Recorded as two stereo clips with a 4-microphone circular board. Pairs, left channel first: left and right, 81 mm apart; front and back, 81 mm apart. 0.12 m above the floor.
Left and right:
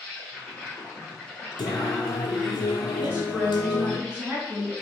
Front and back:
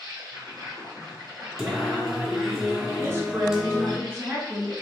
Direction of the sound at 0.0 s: 160° left.